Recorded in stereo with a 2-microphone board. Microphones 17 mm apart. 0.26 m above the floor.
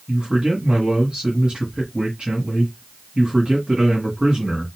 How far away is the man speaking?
About 2 m.